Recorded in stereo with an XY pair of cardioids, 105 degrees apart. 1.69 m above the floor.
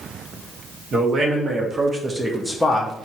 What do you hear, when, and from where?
0.9 s a man speaking: 50° right, 1.1 m; by 3.0 s 35° left, 0.5 m